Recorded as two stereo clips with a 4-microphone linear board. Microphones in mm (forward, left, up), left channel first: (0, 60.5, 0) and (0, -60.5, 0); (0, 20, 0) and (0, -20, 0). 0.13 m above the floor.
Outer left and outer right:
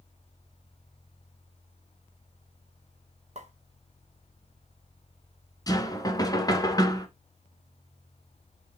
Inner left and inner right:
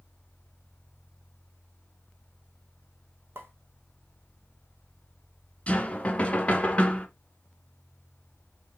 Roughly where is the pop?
Right.